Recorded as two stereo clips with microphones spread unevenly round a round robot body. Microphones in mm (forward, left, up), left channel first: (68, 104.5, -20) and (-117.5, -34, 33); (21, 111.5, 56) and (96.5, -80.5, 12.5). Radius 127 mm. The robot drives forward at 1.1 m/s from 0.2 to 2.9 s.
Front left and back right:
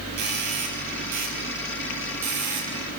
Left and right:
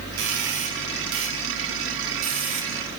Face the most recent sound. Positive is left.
turn(degrees=-120)